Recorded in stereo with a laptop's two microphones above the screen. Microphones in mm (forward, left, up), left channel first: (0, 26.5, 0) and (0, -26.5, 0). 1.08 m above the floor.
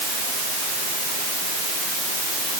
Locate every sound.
Only background noise.